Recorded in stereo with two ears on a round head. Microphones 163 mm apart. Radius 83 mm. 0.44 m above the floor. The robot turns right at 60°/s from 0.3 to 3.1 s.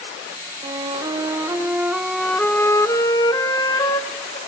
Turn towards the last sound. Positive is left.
turn(degrees=20)  # may be behind; listen again after turning